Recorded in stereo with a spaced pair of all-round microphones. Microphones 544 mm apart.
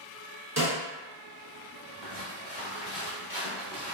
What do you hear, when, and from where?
0.6 s a snare drum: 30° right (ahead or behind), 1.0 m
2.0 s footsteps: 30° right (ahead or behind), 2.0 m; by 3.9 s 20° right (ahead or behind), 1.7 m